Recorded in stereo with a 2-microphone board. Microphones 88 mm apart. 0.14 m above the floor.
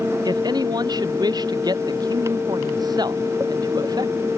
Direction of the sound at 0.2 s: 50° right (ahead or behind).